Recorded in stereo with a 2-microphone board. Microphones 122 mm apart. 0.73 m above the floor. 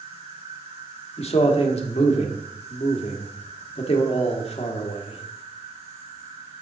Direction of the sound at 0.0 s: 65° right (ahead or behind).